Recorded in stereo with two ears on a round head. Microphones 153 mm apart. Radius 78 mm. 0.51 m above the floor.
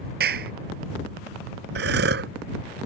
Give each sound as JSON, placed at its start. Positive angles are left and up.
{"t": 0.2, "sound": "a clap", "side_deg": -60}
{"t": 1.8, "sound": "breathing", "side_deg": -70}